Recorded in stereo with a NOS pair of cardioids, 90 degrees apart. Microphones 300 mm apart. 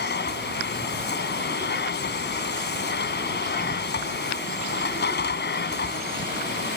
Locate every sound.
0.0 s a machine running: 35° left